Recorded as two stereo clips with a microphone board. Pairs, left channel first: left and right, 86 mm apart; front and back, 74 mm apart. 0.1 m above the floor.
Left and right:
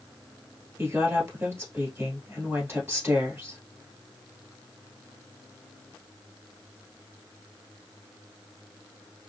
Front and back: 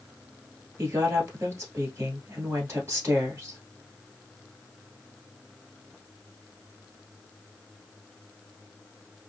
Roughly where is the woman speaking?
Behind right.